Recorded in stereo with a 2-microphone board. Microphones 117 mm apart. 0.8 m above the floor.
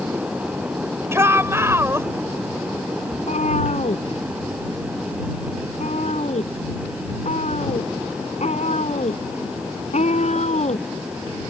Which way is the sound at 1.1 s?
20° right (ahead or behind).